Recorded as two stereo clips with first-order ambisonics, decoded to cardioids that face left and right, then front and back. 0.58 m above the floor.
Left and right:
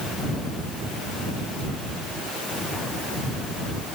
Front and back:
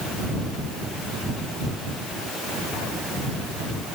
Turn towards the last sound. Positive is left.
No sound to turn to.